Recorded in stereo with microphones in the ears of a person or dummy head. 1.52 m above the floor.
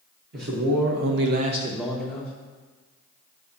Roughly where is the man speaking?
Right.